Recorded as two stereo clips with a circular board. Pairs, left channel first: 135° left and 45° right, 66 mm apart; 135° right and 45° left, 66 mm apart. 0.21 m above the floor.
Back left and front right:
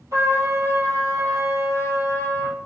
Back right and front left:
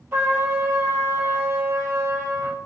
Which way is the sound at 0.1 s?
15° right.